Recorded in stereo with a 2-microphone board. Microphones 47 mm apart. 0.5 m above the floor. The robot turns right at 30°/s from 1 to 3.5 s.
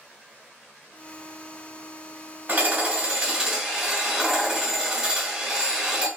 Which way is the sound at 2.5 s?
50° right.